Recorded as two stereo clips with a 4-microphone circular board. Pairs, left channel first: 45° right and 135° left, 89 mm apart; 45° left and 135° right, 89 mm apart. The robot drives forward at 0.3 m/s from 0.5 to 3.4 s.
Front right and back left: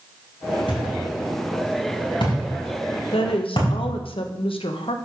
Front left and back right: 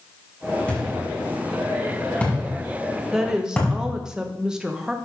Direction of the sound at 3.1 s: 50° right.